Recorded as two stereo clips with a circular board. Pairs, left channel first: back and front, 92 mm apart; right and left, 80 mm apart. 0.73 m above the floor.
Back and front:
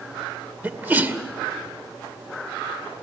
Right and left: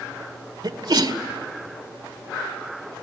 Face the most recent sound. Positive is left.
turn(degrees=70)